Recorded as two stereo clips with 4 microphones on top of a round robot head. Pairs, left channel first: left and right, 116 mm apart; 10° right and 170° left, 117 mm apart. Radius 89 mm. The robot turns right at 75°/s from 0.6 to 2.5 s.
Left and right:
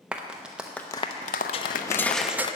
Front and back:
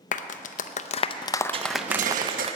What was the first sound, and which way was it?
A clap, 5° right.